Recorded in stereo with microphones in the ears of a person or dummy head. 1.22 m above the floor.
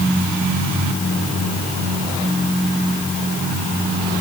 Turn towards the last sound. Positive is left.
No sound to turn to.